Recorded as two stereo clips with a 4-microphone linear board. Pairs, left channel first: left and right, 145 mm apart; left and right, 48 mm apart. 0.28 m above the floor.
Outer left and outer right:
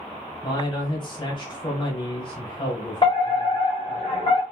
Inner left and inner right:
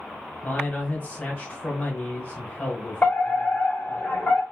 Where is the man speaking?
35° left (ahead or behind), 1.2 m.